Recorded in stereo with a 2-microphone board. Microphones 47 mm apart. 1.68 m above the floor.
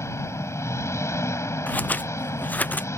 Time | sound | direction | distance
0.0 | an engine running | 85° left | ?
1.7 | scissors | 40° left (ahead or behind) | ?